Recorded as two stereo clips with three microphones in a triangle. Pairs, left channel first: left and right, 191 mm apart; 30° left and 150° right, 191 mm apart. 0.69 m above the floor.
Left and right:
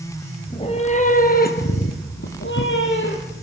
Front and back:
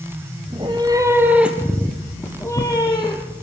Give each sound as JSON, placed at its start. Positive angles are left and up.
{"t": 0.5, "sound": "a cat meowing", "azimuth_deg": 150, "distance_m": 2.0}